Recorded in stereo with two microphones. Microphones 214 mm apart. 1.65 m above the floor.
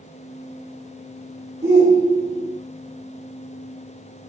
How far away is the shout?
About 5.5 m.